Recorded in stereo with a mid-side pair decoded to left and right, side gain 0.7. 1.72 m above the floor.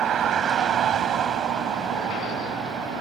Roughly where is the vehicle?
Ahead right.